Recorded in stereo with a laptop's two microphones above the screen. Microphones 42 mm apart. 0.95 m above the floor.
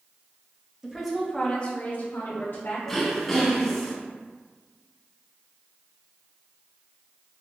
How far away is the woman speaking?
About 0.7 m.